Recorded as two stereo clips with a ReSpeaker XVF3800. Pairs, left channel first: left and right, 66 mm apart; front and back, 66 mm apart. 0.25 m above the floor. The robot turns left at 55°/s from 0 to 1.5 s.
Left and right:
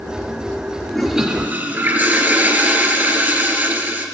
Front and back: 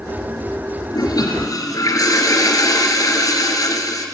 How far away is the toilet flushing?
About 3 m.